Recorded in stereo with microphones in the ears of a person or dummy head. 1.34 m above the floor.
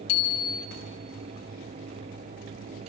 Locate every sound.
0.1 s a bicycle bell: 85° left, 2 m